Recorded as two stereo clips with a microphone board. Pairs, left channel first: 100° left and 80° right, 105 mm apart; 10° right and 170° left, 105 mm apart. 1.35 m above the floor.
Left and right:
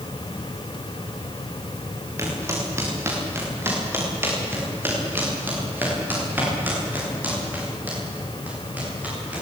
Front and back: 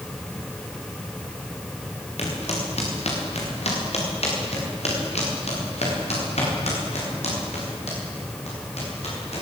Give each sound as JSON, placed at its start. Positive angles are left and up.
{"t": 2.2, "sound": "footsteps", "azimuth_deg": -15, "distance_m": 7.5}